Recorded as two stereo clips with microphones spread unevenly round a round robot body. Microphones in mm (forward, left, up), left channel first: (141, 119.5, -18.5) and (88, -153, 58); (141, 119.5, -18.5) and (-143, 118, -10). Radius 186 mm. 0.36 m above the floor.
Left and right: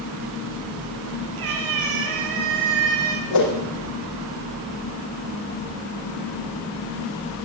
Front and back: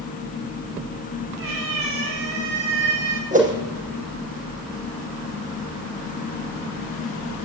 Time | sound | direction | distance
1.4 | a cat meowing | 135° right | 5.5 m
3.3 | a whoosh | 115° left | 5.5 m